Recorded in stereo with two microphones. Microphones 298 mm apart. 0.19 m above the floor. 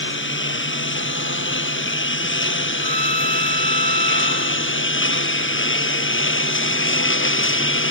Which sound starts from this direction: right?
A violin, at 2.8 s.